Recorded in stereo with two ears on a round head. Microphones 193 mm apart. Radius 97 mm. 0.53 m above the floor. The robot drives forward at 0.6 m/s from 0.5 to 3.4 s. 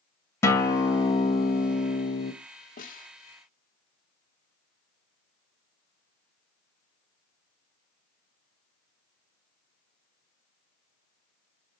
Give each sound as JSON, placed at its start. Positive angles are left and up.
{"t": 0.4, "sound": "a guitar", "side_deg": 10, "distance_m": 2.0}
{"t": 2.8, "sound": "a snare drum", "side_deg": 40, "distance_m": 1.4}